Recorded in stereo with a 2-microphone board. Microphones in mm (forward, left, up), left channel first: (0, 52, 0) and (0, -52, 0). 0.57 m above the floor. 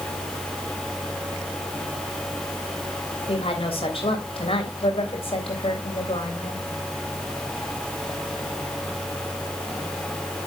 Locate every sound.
3.3 s a woman speaking: 65° left (ahead or behind), 3 m